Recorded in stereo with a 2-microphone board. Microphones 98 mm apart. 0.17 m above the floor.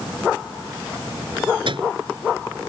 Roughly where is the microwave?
Right.